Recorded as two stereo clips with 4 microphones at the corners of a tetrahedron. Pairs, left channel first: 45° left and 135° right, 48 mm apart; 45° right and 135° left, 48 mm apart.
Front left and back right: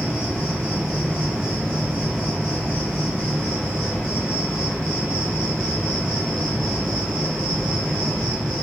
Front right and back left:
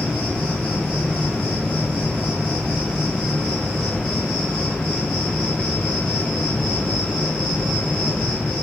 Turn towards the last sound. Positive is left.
turn(degrees=20)